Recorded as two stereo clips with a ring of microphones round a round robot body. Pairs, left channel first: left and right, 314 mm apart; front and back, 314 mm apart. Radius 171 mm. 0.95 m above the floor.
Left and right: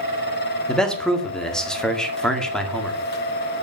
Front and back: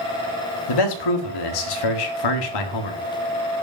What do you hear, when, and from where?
0.7 s a man speaking: straight ahead, 1.9 m